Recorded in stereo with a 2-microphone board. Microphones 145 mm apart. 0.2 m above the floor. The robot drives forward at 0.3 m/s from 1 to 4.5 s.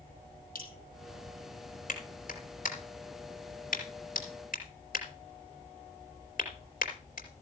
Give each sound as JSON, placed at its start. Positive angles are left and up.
{"t": 0.6, "sound": "dripping", "side_deg": 80, "distance_m": 5.0}
{"t": 1.9, "sound": "a clap", "side_deg": 65, "distance_m": 4.5}